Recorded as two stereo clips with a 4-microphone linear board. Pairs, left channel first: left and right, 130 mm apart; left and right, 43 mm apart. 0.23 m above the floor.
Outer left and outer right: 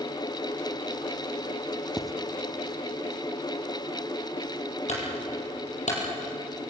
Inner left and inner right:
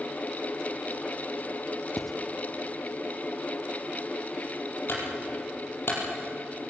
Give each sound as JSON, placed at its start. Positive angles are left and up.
{"t": 2.0, "sound": "writing", "side_deg": 0, "distance_m": 0.8}
{"t": 4.9, "sound": "a clunk", "side_deg": 65, "distance_m": 5.5}